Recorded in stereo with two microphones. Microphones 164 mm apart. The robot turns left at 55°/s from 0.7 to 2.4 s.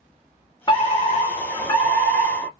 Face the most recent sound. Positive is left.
turn(degrees=20)